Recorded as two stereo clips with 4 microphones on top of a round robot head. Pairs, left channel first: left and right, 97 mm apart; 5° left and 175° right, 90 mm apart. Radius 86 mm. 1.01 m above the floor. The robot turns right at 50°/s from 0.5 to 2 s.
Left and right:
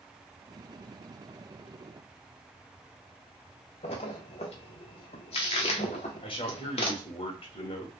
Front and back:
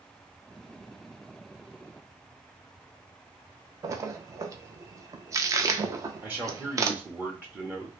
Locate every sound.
3.8 s a splash: 125° left, 0.6 m
6.2 s a man speaking: 115° left, 1.0 m